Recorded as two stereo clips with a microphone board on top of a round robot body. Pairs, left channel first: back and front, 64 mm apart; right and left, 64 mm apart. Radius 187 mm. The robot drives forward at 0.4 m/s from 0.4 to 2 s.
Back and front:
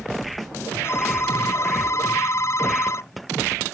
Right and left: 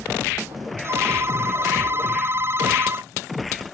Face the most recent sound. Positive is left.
turn(degrees=140)